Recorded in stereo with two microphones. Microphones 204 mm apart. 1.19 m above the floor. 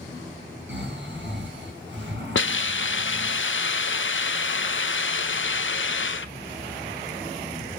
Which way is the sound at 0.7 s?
65° right (ahead or behind).